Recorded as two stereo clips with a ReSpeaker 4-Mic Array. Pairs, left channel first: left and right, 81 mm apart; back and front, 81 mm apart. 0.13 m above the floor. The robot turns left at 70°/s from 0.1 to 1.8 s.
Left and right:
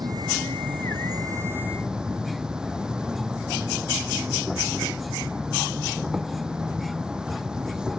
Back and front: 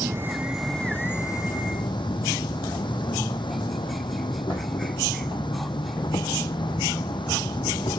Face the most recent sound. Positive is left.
turn(degrees=-170)